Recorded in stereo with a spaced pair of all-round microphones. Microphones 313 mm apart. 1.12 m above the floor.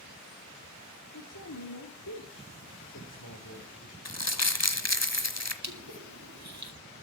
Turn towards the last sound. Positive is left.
turn(degrees=-60)  # may be behind; listen again after turning